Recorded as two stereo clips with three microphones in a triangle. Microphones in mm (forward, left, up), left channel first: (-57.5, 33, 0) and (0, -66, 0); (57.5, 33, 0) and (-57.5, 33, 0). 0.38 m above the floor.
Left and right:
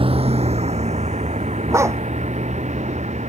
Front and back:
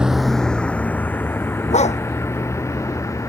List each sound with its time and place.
0.0 s a vehicle: 95° right; by 3.3 s 65° right
1.7 s a dog barking: 5° left